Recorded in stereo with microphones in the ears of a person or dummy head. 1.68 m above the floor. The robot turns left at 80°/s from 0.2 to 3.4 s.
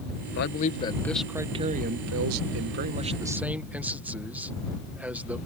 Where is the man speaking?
70° left; by 5.4 s 175° right.